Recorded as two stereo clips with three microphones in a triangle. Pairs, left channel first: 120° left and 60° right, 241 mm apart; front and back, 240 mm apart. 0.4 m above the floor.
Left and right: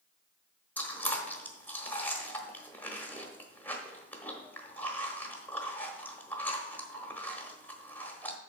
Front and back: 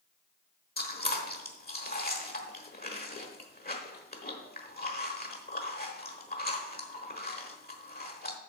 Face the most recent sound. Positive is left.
turn(degrees=40)